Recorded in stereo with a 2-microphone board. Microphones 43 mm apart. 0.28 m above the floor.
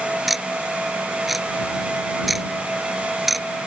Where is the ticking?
5° right (ahead or behind).